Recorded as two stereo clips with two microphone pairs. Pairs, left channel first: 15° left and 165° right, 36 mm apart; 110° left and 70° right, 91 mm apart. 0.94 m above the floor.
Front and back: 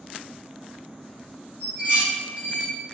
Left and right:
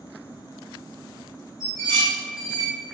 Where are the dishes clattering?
160° left, 1.6 m.